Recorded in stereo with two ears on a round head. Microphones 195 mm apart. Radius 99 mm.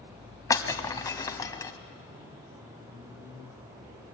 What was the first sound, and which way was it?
Breaking glass, 15° left (ahead or behind).